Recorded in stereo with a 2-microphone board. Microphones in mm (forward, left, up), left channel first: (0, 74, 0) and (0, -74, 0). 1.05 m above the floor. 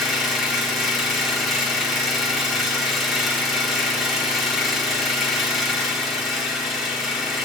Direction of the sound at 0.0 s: Centre (ahead or behind).